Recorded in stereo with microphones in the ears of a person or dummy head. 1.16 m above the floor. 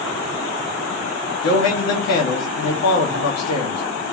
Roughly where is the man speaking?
Left.